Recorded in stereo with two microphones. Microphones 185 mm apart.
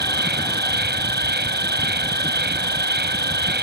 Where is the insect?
65° right (ahead or behind).